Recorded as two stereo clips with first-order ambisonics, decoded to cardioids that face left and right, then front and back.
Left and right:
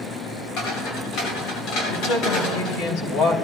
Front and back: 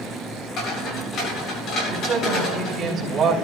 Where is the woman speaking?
120° left, 3.5 m.